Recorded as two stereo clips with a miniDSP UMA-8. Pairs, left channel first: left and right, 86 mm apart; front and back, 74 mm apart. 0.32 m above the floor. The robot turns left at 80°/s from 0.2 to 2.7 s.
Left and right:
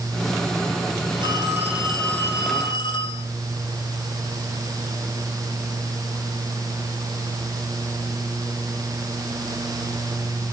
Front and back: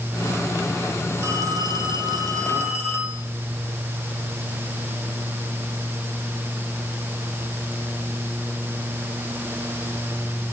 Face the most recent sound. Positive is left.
turn(degrees=120)